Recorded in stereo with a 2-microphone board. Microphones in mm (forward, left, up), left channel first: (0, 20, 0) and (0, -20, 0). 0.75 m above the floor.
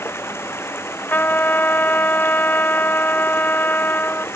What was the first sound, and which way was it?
Running water, 90° left.